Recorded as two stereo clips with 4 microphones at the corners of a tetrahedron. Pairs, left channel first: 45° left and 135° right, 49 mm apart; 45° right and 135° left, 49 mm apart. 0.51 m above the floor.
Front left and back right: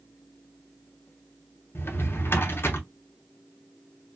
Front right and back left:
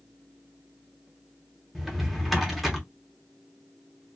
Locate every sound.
1.8 s a drawer: 50° left, 0.7 m